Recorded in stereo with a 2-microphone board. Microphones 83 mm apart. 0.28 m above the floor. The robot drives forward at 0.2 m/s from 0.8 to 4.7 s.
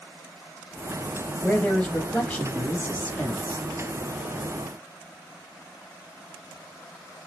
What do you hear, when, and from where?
1.4 s a man speaking: 20° left (ahead or behind), 1.1 m; by 3.6 s 15° left (ahead or behind), 1.4 m